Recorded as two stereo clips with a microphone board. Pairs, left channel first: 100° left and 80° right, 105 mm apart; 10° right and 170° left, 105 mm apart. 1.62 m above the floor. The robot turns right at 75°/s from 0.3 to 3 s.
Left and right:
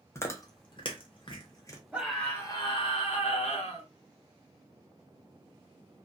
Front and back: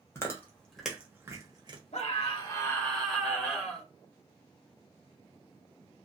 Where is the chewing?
45° left, 0.7 m; by 1.8 s 155° left, 0.7 m.